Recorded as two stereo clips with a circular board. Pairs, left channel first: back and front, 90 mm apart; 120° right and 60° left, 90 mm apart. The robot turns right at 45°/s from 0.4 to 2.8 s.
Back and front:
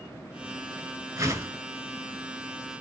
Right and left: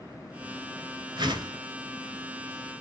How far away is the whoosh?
About 0.8 m.